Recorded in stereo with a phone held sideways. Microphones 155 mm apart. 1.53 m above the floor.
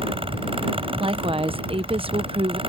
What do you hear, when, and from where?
0.0 s a fan: 35° right (ahead or behind)
1.0 s a woman speaking: 35° right (ahead or behind)